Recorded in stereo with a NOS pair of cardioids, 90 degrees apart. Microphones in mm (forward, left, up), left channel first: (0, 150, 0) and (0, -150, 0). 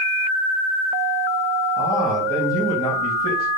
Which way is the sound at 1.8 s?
10° left.